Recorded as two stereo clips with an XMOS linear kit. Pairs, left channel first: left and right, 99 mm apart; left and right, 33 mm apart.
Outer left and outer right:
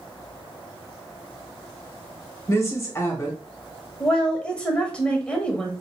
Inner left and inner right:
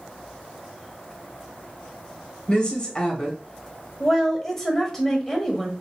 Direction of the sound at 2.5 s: 30° left (ahead or behind).